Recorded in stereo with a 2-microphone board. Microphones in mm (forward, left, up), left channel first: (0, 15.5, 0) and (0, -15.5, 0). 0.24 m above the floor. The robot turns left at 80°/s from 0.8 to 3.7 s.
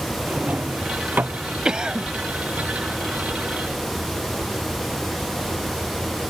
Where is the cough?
55° right; by 2.1 s 90° right.